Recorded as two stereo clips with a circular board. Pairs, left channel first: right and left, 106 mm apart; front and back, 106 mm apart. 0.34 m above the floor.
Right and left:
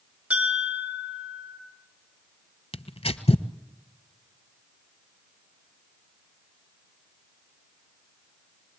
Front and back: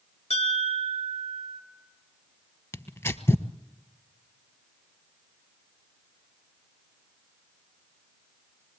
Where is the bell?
10° left, 4.5 m.